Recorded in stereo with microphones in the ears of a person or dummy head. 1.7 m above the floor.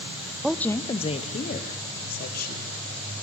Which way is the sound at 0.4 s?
5° right (ahead or behind).